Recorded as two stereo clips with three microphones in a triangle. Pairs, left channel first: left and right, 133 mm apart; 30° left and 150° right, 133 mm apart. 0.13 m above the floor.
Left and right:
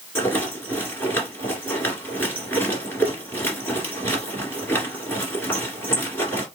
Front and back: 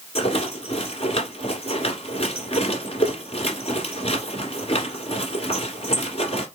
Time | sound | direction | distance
0.1 | a rattle | 25° left | 1.7 m